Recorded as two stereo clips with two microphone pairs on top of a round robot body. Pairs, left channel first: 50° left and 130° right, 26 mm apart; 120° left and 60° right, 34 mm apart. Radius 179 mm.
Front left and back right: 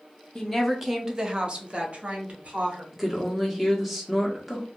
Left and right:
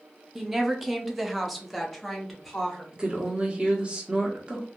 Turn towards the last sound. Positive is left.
turn(degrees=-50)